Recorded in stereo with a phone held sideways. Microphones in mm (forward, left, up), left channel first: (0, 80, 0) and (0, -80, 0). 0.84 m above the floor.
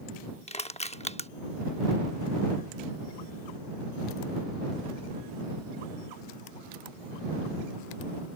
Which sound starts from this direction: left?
Crushing, at 0.5 s.